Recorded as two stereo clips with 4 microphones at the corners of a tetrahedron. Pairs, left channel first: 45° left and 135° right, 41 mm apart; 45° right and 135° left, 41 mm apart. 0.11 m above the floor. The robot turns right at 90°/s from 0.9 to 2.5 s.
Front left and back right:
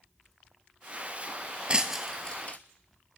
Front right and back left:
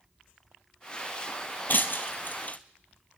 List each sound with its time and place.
1.7 s breaking glass: 75° right, 1.0 m; by 2.6 s 5° right, 1.0 m